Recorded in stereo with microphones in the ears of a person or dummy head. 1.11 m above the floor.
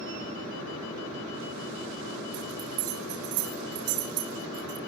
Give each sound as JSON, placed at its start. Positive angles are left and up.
{"t": 2.3, "sound": "a bell", "side_deg": -55, "distance_m": 4.0}